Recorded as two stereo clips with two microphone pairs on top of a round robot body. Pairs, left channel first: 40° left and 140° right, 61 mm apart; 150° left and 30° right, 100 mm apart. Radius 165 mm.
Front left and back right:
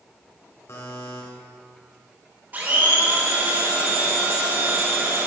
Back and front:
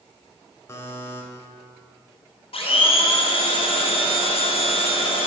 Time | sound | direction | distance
0.7 | a buzzer | 85° left | 2.5 m
2.5 | a blender | 160° left | 3 m